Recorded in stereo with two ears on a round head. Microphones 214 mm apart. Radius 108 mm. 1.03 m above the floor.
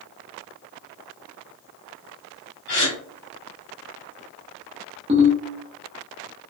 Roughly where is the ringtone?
Right.